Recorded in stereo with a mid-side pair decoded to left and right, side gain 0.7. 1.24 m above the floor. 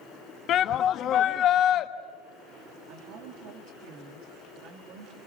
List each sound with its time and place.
0.5 s a shout: 45° left, 1.5 m
2.9 s a woman speaking: 65° right, 3 m